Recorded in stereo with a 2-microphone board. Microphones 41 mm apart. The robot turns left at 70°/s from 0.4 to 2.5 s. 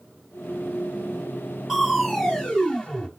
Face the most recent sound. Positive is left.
turn(degrees=20)  # may be behind; listen again after turning